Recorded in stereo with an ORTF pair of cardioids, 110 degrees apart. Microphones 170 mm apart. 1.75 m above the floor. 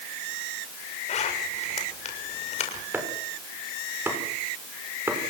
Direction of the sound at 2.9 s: 10° right.